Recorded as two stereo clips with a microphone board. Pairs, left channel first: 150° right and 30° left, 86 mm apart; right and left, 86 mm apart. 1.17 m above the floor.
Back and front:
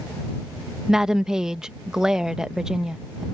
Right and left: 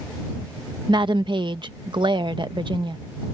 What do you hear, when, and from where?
0.9 s a woman speaking: 110° left